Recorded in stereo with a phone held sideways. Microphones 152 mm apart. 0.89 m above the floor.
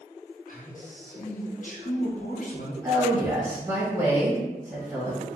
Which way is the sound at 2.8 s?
25° right (ahead or behind).